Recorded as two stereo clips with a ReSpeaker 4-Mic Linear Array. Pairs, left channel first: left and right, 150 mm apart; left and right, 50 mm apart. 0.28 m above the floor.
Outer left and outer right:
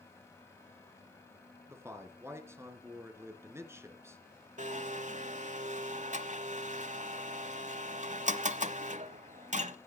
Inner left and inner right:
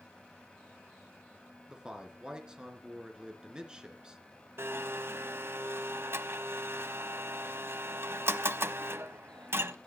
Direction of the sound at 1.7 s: 15° right (ahead or behind).